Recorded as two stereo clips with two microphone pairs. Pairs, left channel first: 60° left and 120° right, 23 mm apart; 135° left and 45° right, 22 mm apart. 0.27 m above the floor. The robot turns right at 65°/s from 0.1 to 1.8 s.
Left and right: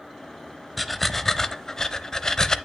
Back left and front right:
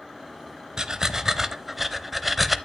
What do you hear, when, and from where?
0.8 s breathing: 30° right, 0.6 m; by 2.6 s 40° left, 0.6 m